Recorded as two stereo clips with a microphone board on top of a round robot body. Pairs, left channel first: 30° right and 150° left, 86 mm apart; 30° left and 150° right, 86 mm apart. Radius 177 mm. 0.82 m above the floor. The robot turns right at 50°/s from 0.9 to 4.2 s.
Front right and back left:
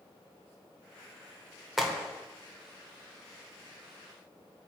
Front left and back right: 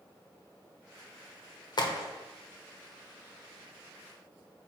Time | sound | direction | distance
1.8 | a crack | 60° left | 1.1 m